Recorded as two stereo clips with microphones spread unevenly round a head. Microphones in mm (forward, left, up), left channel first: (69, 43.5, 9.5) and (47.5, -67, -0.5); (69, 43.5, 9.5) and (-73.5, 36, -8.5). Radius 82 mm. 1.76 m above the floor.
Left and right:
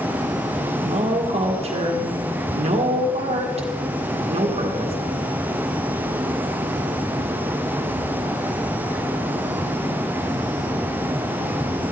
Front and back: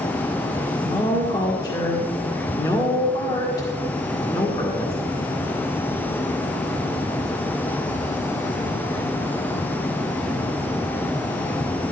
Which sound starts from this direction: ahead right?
A woman speaking, at 0.8 s.